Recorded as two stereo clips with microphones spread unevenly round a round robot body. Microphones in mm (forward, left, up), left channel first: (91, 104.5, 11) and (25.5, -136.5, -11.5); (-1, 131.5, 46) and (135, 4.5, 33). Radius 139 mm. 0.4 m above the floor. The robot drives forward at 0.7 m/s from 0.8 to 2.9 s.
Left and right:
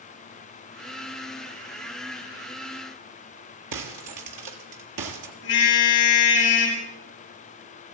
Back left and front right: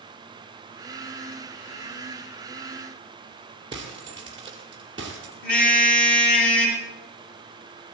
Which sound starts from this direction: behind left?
A car horn, at 5.4 s.